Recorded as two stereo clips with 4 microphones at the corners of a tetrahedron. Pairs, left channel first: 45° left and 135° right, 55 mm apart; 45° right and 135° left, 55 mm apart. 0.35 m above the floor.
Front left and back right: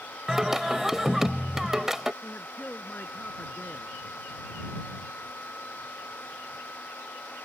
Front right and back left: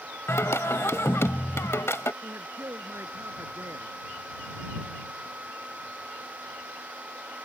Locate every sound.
0.3 s singing: 50° right
2.2 s a man speaking: 105° left